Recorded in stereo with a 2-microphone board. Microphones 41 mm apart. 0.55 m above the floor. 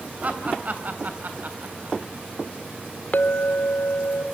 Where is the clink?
45° left (ahead or behind), 1.2 m.